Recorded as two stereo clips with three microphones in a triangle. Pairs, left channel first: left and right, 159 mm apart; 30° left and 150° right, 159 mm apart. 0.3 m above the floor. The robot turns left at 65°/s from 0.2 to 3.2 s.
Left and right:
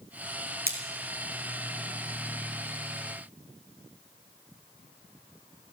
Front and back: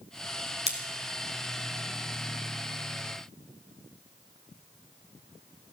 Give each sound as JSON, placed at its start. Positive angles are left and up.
{"t": 0.7, "sound": "scissors", "azimuth_deg": -105, "distance_m": 1.7}